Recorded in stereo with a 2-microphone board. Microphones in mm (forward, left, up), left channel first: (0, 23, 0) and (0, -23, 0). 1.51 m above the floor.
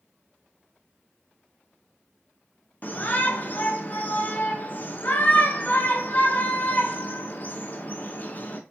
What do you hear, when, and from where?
2.8 s a shout: 40° left (ahead or behind), 0.8 m